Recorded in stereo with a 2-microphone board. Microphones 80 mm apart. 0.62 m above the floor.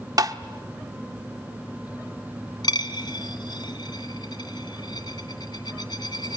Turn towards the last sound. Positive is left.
turn(degrees=65)  # may be behind; listen again after turning